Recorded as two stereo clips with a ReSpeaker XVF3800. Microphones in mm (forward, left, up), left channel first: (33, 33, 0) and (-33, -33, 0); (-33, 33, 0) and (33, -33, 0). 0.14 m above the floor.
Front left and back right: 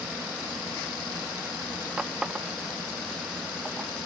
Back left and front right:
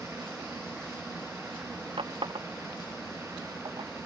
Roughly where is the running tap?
Ahead right.